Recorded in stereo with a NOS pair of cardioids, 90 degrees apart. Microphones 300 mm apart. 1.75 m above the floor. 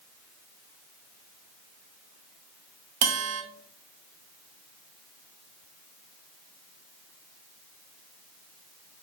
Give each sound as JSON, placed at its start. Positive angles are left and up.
{"t": 3.0, "sound": "a bell", "azimuth_deg": -55, "distance_m": 0.9}